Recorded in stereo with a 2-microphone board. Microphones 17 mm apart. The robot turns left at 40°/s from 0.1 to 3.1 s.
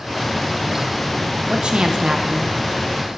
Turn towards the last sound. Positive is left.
turn(degrees=-165)